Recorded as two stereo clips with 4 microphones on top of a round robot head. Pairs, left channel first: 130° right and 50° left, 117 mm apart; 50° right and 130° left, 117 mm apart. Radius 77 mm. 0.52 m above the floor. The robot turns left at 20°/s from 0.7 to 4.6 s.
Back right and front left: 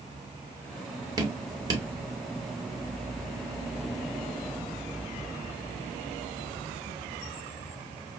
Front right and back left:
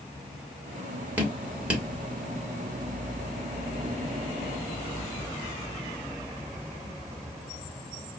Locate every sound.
1.2 s dripping: 70° left, 1.4 m; by 1.9 s 55° left, 1.4 m